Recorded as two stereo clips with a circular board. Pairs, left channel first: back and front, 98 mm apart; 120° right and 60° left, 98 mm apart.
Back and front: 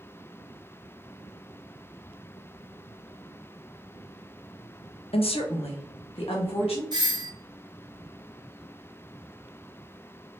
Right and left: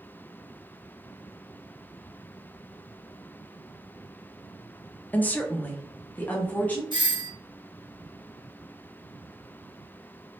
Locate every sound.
5.1 s a woman speaking: 165° left, 0.5 m
6.9 s a doorbell: 35° left, 0.8 m